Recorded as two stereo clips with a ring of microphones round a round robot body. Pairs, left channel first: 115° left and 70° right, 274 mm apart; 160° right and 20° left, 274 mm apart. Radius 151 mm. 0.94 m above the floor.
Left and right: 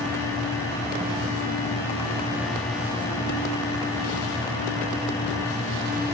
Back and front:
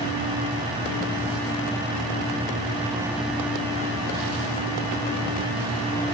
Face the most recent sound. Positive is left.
No sound to turn to.